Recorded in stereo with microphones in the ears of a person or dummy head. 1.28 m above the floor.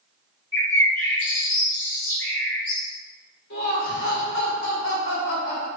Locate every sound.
0.5 s a bird: 10° left (ahead or behind), 1.7 m
3.5 s laughter: 65° left (ahead or behind), 1.2 m